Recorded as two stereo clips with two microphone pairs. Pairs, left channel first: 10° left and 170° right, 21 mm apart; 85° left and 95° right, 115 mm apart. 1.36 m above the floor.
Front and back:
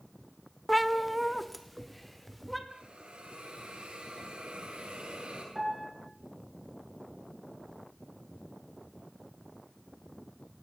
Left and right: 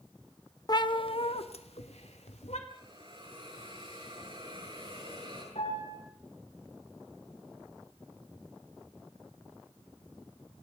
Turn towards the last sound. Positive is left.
turn(degrees=110)